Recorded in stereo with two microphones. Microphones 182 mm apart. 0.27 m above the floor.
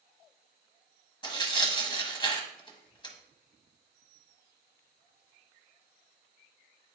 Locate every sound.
1.2 s tearing paper: 25° left (ahead or behind), 1.0 m